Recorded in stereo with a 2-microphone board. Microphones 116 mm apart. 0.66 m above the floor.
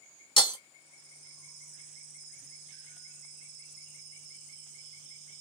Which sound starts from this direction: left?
Breaking glass, at 0.4 s.